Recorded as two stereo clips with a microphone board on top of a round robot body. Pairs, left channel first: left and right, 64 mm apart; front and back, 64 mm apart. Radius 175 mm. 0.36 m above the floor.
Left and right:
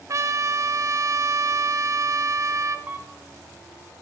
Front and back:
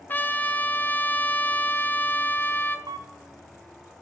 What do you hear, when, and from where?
0.1 s a trumpet: 60° right, 0.8 m
2.9 s a camera shutter: 160° right, 0.7 m